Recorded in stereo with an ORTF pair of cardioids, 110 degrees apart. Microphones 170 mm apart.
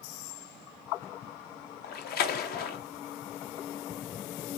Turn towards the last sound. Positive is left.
turn(degrees=65)